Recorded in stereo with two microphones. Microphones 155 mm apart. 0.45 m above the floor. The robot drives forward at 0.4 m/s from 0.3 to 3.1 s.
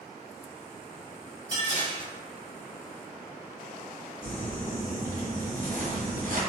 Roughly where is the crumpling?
Right.